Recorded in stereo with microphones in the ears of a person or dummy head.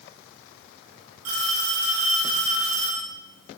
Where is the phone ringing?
85° right, 6.5 m.